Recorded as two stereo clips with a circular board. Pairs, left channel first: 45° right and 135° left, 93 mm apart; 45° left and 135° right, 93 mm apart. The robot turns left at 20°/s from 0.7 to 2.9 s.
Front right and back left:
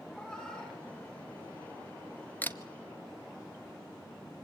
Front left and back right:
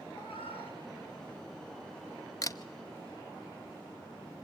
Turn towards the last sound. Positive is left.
turn(degrees=5)